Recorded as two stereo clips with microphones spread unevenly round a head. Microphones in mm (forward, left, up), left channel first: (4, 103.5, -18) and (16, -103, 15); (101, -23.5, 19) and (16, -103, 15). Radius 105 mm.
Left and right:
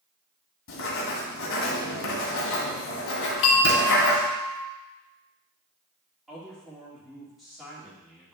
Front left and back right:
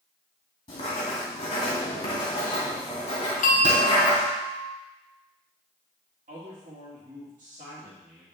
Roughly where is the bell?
Ahead left.